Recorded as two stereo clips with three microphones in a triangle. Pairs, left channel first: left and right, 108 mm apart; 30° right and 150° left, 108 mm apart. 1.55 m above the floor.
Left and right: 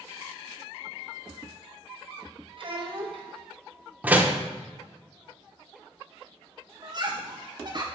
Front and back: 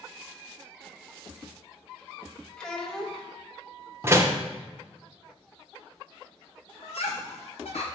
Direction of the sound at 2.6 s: 115° right.